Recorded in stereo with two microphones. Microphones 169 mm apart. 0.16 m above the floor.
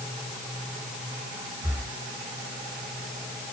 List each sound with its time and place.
1.6 s breathing: 10° right (ahead or behind), 5 m